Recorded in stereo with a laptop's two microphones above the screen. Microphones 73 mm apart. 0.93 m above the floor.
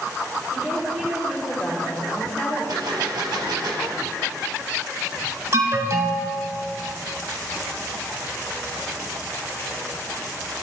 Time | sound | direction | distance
0.5 | a woman speaking | 25° right (ahead or behind) | 2.5 m
2.7 | a gunshot | 75° right (ahead or behind) | 0.9 m
5.5 | an alarm | 45° right (ahead or behind) | 0.9 m